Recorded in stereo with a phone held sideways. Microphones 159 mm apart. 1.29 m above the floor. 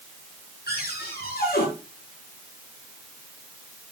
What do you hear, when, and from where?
0.7 s a cupboard door: 85° left, 9.5 m